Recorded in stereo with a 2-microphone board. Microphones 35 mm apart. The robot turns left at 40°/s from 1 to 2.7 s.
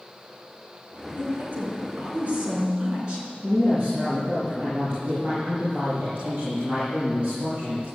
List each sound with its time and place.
1.2 s a woman speaking: 100° right, 5 m; by 3.3 s 160° right, 5 m
3.4 s a woman speaking: 30° right (ahead or behind), 6.5 m